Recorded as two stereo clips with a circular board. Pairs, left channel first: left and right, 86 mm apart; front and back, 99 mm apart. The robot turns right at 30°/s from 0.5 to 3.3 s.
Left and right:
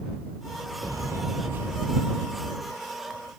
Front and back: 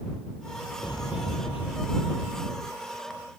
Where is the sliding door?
45° right; by 2.0 s 10° right.